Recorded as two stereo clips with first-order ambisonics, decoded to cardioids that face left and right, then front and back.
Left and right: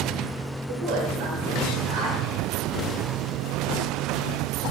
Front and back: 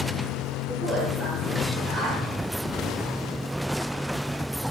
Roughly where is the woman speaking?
Right.